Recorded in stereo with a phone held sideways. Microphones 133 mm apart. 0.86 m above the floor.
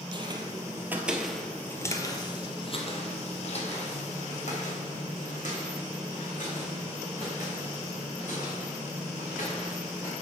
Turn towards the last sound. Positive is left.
turn(degrees=75)  # may be behind; listen again after turning